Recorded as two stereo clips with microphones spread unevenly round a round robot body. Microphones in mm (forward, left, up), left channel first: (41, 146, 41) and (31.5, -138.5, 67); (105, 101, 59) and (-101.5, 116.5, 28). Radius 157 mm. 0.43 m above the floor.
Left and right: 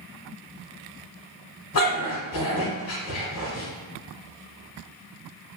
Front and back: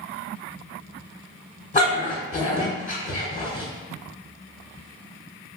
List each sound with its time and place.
1.7 s a dog barking: 50° left, 1.4 m